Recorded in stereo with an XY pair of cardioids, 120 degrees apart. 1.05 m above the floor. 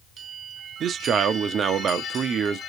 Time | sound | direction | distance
0.8 | a man speaking | 50° right | 0.9 m